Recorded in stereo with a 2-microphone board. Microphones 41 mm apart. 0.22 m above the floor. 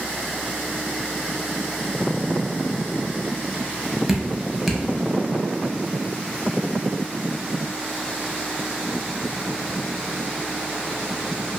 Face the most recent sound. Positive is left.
turn(degrees=-5)  # may be behind; listen again after turning